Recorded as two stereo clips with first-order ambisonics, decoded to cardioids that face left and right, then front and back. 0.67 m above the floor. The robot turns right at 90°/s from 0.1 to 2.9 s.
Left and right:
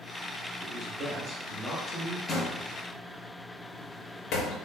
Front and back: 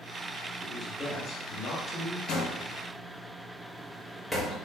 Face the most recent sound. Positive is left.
turn(degrees=85)